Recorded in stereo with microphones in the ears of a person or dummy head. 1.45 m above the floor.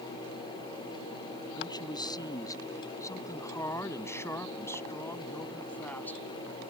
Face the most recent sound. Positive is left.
turn(degrees=10)  # may be behind; listen again after turning